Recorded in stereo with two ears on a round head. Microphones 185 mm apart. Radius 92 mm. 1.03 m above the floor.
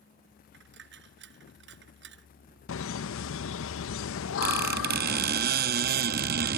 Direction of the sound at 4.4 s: 45° right (ahead or behind).